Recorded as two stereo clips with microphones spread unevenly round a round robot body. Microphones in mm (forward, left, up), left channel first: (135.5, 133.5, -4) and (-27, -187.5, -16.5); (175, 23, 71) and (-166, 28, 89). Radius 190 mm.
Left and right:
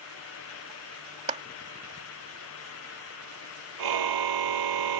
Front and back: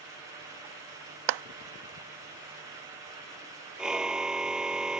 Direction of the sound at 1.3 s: 170° left.